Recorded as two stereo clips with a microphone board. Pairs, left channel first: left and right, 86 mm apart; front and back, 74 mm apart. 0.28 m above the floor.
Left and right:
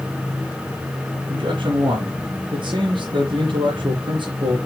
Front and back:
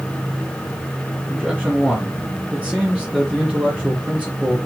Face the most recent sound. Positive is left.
turn(degrees=-105)